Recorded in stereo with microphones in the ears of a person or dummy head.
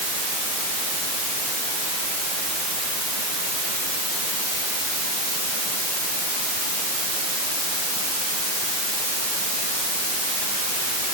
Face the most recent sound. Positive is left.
No sound to turn to.